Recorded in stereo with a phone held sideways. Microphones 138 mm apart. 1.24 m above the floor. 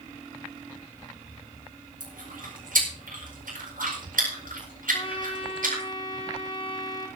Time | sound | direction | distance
2.0 | chewing | 85° right | 8 m
4.9 | a trumpet | 35° left (ahead or behind) | 4.5 m